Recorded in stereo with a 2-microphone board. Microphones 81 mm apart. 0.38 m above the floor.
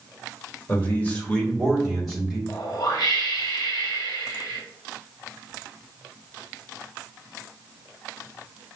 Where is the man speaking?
25° left (ahead or behind), 1.6 m; by 2.4 s 10° right (ahead or behind), 1.6 m.